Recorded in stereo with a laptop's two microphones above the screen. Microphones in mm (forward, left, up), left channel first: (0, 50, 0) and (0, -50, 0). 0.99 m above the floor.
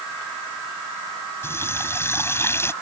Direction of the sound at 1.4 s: 25° left (ahead or behind).